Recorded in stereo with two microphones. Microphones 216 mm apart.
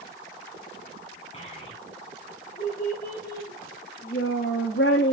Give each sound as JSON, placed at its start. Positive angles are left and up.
{"t": 1.3, "sound": "a child speaking", "side_deg": 30, "distance_m": 5.5}